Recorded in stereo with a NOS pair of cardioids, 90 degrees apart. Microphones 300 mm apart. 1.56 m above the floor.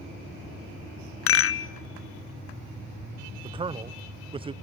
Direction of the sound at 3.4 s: 20° right.